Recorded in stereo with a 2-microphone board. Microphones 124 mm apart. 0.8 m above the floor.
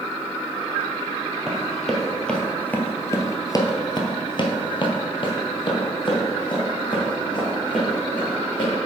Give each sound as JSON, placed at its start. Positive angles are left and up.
{"t": 1.5, "sound": "running footsteps", "side_deg": 0, "distance_m": 1.3}